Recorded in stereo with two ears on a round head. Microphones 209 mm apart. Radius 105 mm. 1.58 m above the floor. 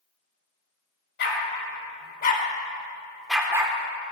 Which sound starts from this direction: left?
A dog barking, at 1.2 s.